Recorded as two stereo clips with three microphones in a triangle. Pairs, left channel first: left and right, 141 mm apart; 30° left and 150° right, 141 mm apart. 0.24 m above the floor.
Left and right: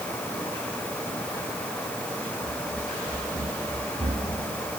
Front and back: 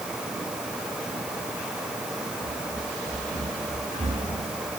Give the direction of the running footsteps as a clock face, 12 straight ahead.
5 o'clock.